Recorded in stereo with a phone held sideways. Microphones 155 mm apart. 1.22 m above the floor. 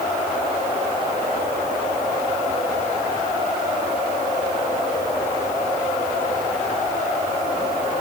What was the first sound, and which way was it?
Only background noise.